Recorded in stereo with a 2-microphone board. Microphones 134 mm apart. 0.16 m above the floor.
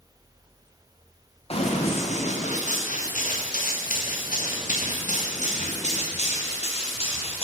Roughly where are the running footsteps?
Left.